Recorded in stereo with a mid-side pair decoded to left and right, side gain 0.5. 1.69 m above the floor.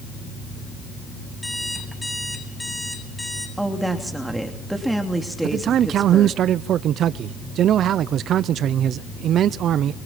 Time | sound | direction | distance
1.4 | an alarm clock | 10° left | 8 m
3.6 | a woman speaking | 10° right | 3 m
5.4 | a man speaking | 60° right | 0.6 m